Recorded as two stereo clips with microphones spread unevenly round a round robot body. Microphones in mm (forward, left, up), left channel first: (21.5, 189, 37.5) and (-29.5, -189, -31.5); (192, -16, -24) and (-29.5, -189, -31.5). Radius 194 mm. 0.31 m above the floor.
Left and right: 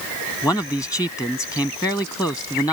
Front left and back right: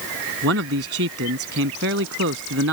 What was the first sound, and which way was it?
A man speaking, 170° left.